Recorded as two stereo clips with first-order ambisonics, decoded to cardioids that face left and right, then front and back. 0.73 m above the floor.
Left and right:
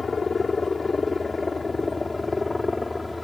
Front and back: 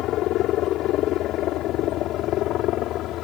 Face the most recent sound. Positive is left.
turn(degrees=10)